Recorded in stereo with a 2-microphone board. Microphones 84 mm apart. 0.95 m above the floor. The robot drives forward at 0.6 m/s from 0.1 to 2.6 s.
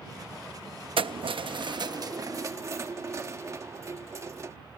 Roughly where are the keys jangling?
Right.